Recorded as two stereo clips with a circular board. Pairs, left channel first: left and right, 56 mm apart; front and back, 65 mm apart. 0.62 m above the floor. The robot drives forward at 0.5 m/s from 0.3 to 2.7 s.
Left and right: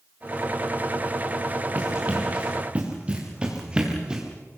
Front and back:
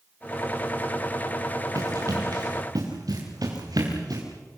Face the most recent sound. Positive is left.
turn(degrees=-165)